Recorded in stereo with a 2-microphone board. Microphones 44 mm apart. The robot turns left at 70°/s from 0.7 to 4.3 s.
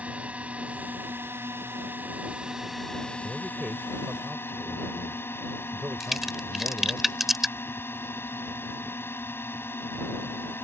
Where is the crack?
5° right (ahead or behind).